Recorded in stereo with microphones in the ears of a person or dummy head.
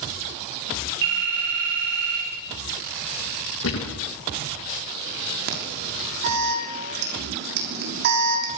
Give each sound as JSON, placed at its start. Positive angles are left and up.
{"t": 1.0, "sound": "a phone ringing", "side_deg": -65, "distance_m": 9.5}
{"t": 3.6, "sound": "a thud", "side_deg": 75, "distance_m": 7.5}
{"t": 5.5, "sound": "an alarm", "side_deg": -55, "distance_m": 6.0}